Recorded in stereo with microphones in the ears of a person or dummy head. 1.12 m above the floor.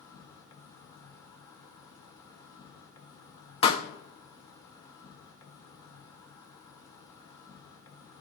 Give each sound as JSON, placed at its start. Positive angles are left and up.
{"t": 0.0, "sound": "an insect", "side_deg": 20, "distance_m": 1.2}
{"t": 3.6, "sound": "a pop", "side_deg": 35, "distance_m": 0.9}